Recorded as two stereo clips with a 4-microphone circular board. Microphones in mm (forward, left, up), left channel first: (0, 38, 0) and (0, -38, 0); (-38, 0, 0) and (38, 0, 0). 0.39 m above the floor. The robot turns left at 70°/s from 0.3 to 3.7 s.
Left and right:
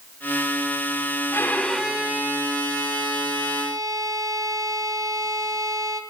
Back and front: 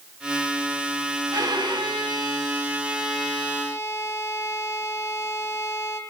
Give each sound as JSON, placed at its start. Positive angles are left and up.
{"t": 1.3, "sound": "a violin", "azimuth_deg": 35, "distance_m": 2.0}